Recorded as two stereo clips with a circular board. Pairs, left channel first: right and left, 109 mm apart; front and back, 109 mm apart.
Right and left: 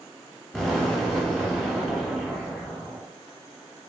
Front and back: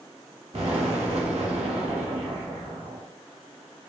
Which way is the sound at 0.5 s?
175° right.